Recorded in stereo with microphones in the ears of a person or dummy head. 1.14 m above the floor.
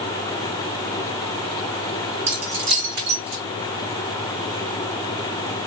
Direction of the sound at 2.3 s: 80° right.